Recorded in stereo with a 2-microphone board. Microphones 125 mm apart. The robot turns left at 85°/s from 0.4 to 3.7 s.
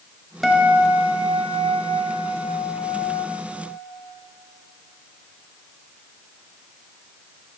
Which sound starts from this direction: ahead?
A guitar, at 0.4 s.